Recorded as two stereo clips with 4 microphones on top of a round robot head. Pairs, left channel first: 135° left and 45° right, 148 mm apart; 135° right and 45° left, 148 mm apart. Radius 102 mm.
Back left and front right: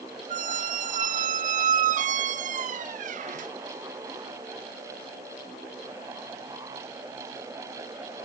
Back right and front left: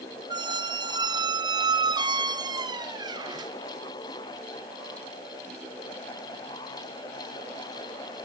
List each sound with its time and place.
0.3 s a squeak: 15° right, 0.5 m